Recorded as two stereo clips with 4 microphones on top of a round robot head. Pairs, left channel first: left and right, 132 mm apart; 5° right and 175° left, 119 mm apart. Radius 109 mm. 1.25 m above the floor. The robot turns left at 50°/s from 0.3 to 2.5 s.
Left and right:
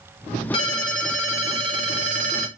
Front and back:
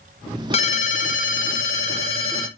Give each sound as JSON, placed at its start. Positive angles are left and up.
{"t": 0.5, "sound": "a ringtone", "azimuth_deg": 30, "distance_m": 0.5}